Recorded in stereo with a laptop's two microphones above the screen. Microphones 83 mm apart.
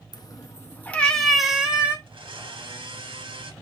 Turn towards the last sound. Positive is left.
turn(degrees=-85)